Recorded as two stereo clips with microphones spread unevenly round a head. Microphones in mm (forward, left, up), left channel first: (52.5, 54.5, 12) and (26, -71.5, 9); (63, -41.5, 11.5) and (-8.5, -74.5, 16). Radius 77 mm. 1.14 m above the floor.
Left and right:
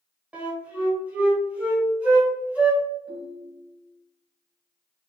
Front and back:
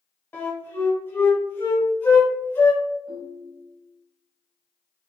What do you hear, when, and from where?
0.3 s a flute: 25° right, 1.0 m
3.1 s a ringtone: 90° left, 1.3 m